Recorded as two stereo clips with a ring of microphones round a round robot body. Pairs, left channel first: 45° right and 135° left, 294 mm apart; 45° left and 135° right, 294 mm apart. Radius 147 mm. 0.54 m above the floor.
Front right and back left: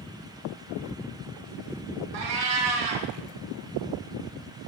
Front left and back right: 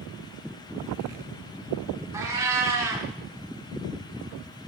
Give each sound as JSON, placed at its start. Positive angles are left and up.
{"t": 2.1, "sound": "a cat meowing", "azimuth_deg": 145, "distance_m": 2.0}